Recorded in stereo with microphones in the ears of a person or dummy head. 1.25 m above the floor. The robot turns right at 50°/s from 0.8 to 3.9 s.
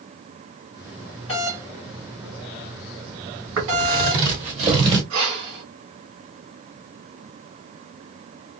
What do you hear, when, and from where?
1.3 s a doorbell: 30° left (ahead or behind), 2.5 m; by 4.3 s 70° right (ahead or behind), 2.5 m
3.6 s footsteps: 65° right (ahead or behind), 3 m; by 5.0 s 20° right (ahead or behind), 1.4 m
5.1 s breathing: 75° right (ahead or behind), 2.5 m